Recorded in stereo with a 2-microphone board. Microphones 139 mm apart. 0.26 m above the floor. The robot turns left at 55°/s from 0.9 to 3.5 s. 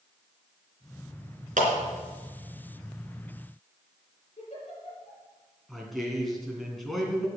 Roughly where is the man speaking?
Centre.